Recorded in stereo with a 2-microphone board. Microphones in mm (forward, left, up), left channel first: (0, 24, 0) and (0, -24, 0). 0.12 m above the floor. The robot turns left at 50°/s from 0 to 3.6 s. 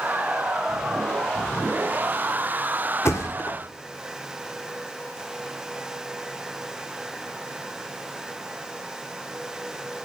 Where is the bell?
I don't hear a bell.